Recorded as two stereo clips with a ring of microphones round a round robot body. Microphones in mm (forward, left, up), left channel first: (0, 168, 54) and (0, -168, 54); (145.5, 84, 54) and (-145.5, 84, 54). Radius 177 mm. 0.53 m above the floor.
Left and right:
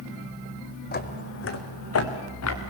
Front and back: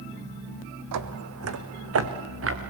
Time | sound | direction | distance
0.9 | footsteps | 155° left | 1.7 m